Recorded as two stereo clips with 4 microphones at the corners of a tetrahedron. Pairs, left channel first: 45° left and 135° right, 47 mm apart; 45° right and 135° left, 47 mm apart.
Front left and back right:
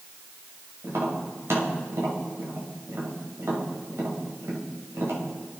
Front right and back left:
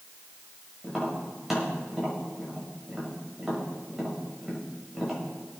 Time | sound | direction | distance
0.8 | tapping | 140° right | 5.5 m